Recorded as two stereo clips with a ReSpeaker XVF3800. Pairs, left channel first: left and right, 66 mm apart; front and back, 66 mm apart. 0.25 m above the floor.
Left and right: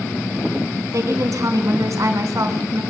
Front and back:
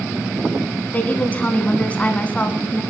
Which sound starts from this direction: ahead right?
A woman speaking, at 0.9 s.